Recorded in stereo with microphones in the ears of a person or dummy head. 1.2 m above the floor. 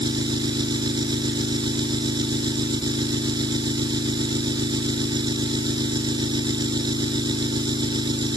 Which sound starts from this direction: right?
An engine running, at 0.0 s.